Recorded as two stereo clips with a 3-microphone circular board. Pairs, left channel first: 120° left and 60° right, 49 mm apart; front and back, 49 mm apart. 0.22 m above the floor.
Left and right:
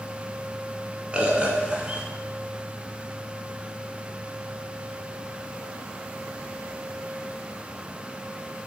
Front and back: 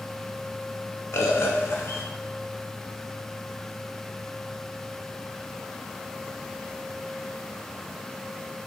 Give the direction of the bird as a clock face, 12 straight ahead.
12 o'clock.